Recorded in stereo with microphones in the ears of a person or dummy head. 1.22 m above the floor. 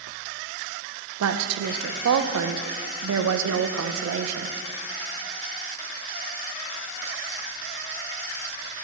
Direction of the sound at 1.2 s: 85° right.